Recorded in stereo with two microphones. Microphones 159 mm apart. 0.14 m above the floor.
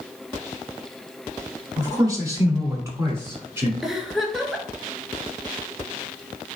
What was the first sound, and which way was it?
A man speaking, 20° right (ahead or behind).